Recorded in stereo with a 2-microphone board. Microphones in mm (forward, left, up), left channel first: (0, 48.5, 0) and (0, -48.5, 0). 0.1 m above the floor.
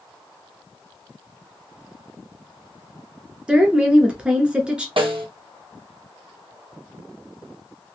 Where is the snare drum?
60° right (ahead or behind), 1.1 m.